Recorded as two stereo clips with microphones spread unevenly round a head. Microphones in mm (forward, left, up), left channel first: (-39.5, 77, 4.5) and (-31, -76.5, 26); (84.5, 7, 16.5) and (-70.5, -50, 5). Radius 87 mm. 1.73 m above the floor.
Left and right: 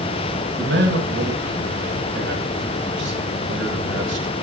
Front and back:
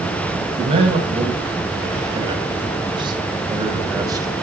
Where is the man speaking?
100° right, 10 m; by 4.4 s 90° right, 8.5 m.